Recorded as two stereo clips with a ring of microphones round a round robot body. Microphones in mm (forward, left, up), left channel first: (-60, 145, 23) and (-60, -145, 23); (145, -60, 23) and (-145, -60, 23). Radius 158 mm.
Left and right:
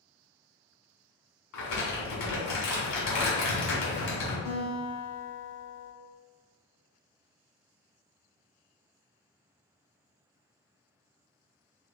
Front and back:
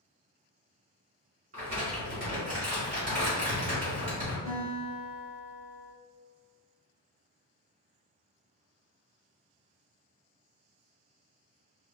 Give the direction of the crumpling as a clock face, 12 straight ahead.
8 o'clock.